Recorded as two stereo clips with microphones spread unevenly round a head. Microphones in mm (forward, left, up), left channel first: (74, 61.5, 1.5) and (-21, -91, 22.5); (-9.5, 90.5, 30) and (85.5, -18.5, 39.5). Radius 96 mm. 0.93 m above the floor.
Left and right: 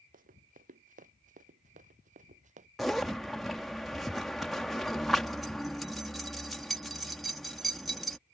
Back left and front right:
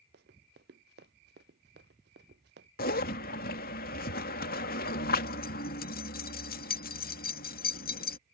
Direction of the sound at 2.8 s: 145° left.